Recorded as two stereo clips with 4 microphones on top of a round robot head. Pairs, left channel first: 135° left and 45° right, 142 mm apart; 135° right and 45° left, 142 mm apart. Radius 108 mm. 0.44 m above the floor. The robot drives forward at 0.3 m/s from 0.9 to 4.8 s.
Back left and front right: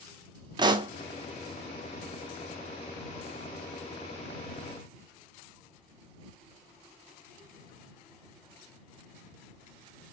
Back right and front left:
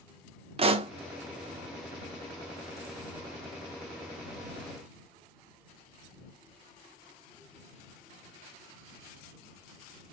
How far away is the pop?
About 0.6 m.